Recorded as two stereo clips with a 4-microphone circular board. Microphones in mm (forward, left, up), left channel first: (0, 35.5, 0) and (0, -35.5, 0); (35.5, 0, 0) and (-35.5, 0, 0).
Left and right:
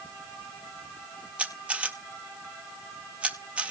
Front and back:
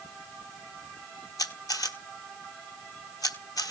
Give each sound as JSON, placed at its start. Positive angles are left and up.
{"t": 1.4, "sound": "a camera shutter", "azimuth_deg": -20, "distance_m": 1.3}